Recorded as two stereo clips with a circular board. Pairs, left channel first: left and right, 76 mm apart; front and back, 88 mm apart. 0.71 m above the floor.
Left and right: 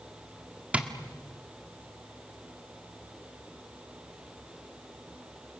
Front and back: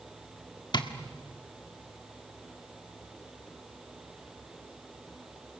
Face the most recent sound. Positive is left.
turn(degrees=-15)